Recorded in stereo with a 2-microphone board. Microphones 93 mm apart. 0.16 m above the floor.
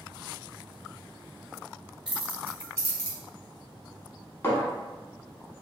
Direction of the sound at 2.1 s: 10° right (ahead or behind).